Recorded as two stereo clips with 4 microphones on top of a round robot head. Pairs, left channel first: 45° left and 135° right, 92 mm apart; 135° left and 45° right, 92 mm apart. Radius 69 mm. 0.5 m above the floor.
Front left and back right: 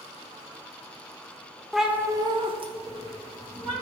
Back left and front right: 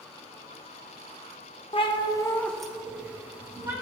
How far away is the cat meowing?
About 0.7 m.